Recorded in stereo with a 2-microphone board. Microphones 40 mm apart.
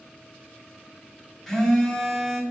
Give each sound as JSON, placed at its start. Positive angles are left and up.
{"t": 1.5, "sound": "a phone buzzing", "side_deg": 5, "distance_m": 1.5}